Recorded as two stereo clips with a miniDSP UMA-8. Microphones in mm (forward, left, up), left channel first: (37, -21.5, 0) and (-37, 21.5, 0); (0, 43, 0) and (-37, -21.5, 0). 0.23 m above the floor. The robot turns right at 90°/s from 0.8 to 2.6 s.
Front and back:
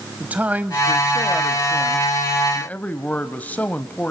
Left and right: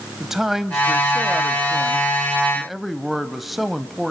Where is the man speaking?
165° left, 0.9 m; by 4.1 s 35° right, 0.9 m.